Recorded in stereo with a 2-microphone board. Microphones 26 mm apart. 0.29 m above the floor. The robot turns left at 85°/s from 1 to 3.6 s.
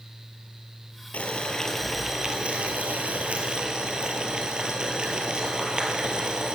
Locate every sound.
1.1 s boiling: 70° left, 1.5 m; by 6.5 s 140° right, 1.5 m